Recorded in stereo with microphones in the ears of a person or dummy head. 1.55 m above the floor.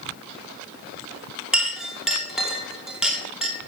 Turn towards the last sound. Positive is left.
turn(degrees=-5)  # may be behind; listen again after turning